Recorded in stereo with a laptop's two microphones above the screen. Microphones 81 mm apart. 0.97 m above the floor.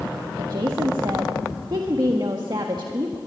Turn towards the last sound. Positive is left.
turn(degrees=-65)  # may be behind; listen again after turning